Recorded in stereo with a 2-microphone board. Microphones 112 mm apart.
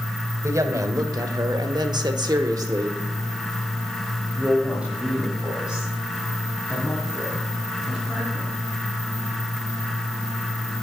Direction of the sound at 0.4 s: 30° right (ahead or behind).